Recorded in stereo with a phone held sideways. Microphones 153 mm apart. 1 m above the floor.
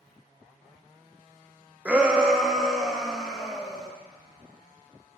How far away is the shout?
About 0.8 m.